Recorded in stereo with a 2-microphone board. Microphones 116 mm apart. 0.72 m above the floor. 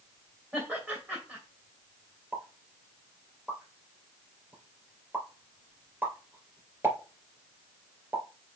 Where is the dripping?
No dripping in this recording.